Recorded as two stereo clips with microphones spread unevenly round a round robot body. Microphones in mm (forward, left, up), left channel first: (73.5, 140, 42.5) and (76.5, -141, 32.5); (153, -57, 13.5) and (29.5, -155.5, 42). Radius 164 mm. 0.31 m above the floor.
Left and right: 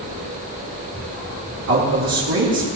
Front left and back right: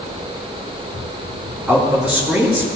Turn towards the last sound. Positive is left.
turn(degrees=-60)